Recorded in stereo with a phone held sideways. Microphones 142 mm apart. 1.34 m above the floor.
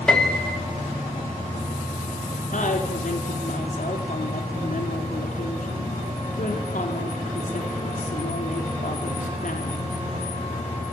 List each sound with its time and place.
0.1 s a piano: 5° left (ahead or behind), 3.5 m
2.5 s a woman speaking: 65° left (ahead or behind), 4 m